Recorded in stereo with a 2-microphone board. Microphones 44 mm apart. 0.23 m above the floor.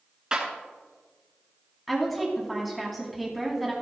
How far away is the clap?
About 2.5 m.